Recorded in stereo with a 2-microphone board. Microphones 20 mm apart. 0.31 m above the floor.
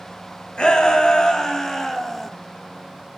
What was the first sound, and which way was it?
A shout, 60° left (ahead or behind).